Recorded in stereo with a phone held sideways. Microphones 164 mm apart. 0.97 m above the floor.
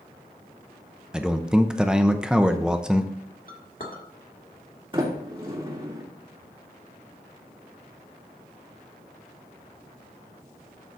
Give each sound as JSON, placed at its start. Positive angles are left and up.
{"t": 1.1, "sound": "a man speaking", "side_deg": -5, "distance_m": 0.7}
{"t": 3.5, "sound": "a clink", "side_deg": 60, "distance_m": 1.9}
{"t": 4.9, "sound": "a sliding door", "side_deg": -30, "distance_m": 2.5}